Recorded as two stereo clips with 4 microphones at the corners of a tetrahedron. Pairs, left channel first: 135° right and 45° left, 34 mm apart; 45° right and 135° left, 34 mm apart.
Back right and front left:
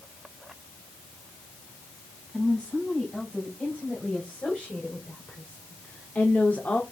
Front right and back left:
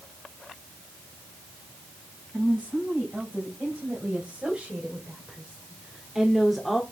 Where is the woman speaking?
175° left, 4.5 m; by 6.8 s 125° right, 1.4 m.